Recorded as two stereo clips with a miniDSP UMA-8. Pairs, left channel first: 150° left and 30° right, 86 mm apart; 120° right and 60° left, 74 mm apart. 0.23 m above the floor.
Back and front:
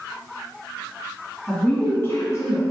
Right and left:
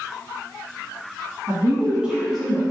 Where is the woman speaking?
70° left, 1.1 m; by 2.6 s 160° left, 1.3 m.